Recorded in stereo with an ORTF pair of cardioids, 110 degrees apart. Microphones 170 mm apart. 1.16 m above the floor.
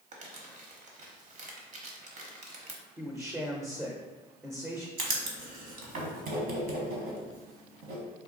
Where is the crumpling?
50° right, 1.0 m.